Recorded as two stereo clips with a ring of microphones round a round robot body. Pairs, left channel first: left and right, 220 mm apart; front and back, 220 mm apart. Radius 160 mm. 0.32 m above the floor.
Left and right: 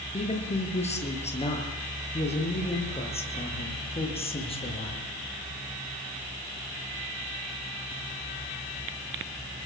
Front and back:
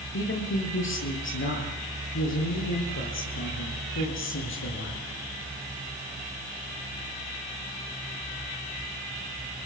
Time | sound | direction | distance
0.1 | a man speaking | 30° left | 8 m